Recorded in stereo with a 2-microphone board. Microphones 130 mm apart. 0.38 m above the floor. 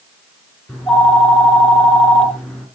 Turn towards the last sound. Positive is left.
turn(degrees=5)  # may be behind; listen again after turning